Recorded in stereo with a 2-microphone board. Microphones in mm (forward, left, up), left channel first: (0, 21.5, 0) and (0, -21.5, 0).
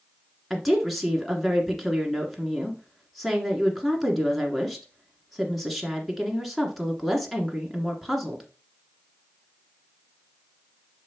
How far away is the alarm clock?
I don't hear an alarm clock.